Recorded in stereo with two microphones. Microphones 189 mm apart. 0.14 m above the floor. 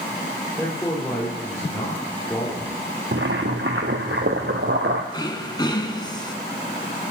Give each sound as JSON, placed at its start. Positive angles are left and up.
{"t": 0.6, "sound": "a man speaking", "side_deg": 5, "distance_m": 4.5}
{"t": 3.1, "sound": "boiling", "side_deg": -80, "distance_m": 1.3}
{"t": 5.1, "sound": "throat clearing", "side_deg": 25, "distance_m": 1.3}